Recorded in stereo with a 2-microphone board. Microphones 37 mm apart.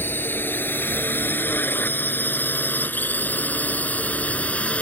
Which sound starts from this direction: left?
A drone, at 0.0 s.